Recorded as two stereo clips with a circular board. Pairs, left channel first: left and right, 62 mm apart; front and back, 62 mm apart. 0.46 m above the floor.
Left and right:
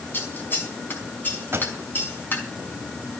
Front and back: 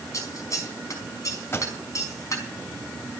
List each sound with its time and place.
0.1 s scissors: 35° left, 5 m
1.5 s a pop: 45° right, 3 m